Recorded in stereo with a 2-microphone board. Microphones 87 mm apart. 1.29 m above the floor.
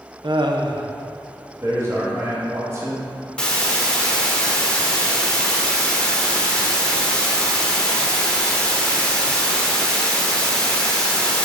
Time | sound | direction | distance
0.2 | laughter | 65° right (ahead or behind) | 0.7 m
1.6 | a man speaking | 35° right (ahead or behind) | 1.8 m
3.4 | a hiss | 10° left (ahead or behind) | 1.0 m